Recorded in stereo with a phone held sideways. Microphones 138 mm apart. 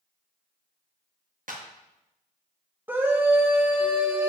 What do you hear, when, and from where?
1.5 s a clap: 75° right (ahead or behind), 1.1 m
2.9 s a scream: 15° right (ahead or behind), 1.1 m